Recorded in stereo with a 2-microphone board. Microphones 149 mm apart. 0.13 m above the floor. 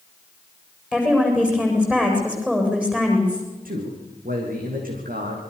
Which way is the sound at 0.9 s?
10° right (ahead or behind).